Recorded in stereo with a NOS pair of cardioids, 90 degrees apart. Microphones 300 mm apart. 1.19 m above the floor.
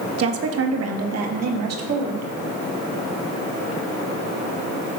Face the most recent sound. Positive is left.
turn(degrees=-65)